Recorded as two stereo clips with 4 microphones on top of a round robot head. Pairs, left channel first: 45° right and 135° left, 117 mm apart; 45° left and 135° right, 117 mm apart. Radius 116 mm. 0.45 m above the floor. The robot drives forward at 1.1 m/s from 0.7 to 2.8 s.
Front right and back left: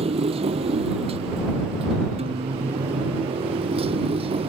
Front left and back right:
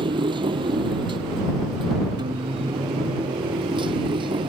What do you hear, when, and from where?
0.0 s a motorcycle: 175° left
2.2 s a guitar: 170° left